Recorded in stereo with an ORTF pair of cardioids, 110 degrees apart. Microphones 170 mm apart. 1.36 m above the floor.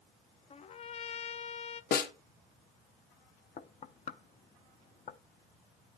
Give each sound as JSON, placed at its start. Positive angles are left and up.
{"t": 0.5, "sound": "a trumpet", "azimuth_deg": 40, "distance_m": 0.6}
{"t": 1.9, "sound": "a snare drum", "azimuth_deg": 55, "distance_m": 1.3}
{"t": 3.6, "sound": "knocking", "azimuth_deg": 40, "distance_m": 0.7}